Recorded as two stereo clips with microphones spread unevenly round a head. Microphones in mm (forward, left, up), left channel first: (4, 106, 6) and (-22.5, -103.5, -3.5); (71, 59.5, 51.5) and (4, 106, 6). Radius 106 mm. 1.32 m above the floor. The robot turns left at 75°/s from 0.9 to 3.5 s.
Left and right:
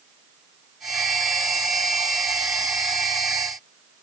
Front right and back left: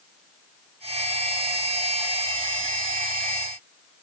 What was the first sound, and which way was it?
Only background noise.